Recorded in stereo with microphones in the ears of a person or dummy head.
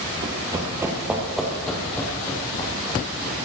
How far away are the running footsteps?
About 1.7 m.